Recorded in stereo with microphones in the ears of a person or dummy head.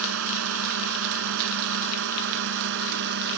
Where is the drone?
80° right; by 3.4 s 65° right (ahead or behind).